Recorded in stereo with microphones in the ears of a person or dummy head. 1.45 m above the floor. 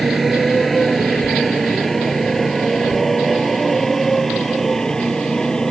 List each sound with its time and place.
0.0 s a motorcycle: 5° right (ahead or behind); by 5.7 s centre (ahead or behind)